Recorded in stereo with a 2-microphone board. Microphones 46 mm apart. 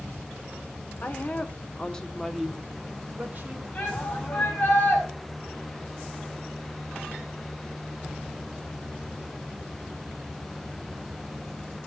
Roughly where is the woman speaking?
Left.